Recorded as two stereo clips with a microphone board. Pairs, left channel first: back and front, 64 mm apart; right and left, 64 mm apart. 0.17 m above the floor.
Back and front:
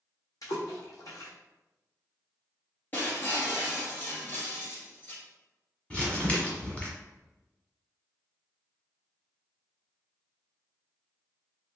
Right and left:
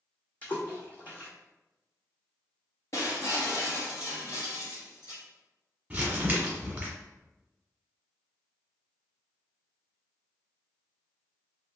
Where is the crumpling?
135° left, 1.6 m.